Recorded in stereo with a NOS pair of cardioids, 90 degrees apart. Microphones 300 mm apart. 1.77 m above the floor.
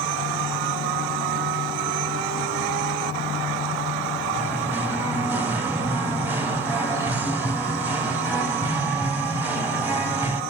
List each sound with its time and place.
4.3 s singing: 5° right, 0.7 m